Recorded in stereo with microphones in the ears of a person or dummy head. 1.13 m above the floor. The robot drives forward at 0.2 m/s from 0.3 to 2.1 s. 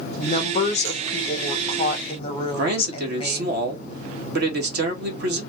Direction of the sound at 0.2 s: 35° left (ahead or behind).